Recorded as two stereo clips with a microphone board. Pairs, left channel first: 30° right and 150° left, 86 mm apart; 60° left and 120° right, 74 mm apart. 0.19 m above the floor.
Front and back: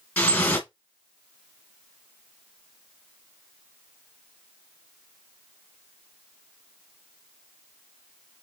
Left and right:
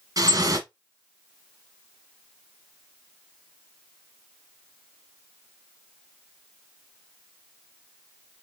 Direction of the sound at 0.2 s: 105° right.